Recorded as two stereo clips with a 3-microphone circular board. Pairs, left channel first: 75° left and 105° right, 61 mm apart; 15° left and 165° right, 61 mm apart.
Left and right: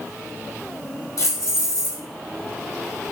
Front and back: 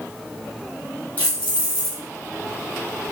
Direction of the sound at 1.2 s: 75° left.